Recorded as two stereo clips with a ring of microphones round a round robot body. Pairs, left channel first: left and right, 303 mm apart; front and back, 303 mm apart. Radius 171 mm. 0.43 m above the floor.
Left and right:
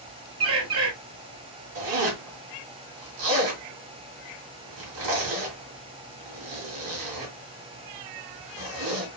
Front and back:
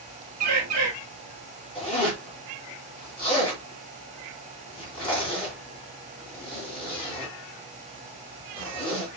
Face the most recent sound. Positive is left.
turn(degrees=-75)